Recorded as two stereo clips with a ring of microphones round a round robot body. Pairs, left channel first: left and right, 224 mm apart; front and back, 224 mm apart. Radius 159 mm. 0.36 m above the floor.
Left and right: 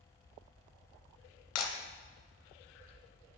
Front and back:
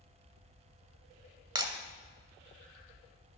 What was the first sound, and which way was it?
Breaking glass, 110° left.